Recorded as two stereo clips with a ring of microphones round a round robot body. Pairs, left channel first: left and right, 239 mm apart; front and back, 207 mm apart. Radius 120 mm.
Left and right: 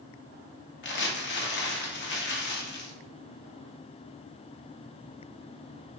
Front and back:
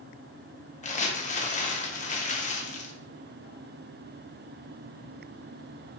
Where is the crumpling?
50° left, 1.0 m.